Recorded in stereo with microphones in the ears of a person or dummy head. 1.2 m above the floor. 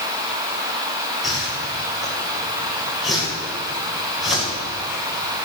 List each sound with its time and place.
1.2 s a whoosh: 5° right (ahead or behind), 5.5 m